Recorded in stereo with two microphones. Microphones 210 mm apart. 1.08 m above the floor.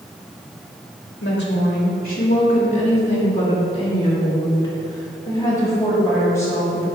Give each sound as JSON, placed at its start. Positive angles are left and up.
{"t": 1.2, "sound": "a woman speaking", "side_deg": 60, "distance_m": 2.0}